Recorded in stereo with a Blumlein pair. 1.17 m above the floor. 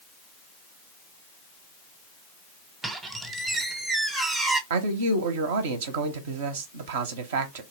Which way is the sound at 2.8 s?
10° right.